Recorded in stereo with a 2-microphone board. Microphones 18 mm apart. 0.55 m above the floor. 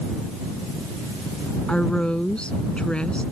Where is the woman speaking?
70° left (ahead or behind).